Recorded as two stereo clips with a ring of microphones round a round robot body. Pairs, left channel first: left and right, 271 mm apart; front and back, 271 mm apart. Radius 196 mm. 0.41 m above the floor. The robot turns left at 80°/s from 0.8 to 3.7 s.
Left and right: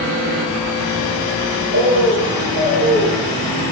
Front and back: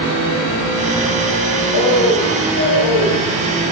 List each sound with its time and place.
1.7 s a bird: 45° right, 3.5 m; by 3.2 s 165° right, 3.5 m